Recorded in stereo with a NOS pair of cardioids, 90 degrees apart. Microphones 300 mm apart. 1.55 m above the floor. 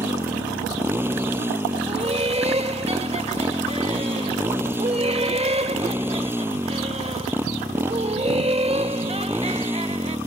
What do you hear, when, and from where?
0.0 s a motorcycle: 5° right
1.9 s laughter: 20° right